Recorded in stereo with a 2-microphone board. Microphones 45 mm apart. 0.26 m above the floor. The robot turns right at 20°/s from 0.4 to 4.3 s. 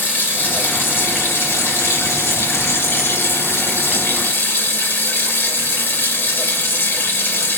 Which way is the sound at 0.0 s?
45° left.